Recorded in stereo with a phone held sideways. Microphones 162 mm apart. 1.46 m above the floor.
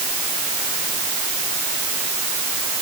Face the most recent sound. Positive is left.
No sound to turn to.